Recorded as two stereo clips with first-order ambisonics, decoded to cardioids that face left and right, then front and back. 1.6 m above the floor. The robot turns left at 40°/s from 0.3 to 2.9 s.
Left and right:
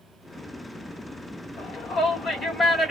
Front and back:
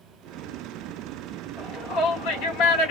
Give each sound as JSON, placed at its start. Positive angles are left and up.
{"t": 1.6, "sound": "a shout", "azimuth_deg": 55, "distance_m": 1.9}